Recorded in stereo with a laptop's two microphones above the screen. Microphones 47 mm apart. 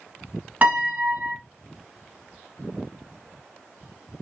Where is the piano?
35° right (ahead or behind), 1.1 m.